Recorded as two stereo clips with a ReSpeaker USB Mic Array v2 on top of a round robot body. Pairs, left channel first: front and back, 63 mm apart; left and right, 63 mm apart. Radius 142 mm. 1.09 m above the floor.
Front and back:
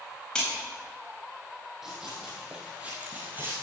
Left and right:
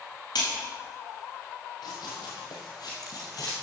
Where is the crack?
85° left, 4 m.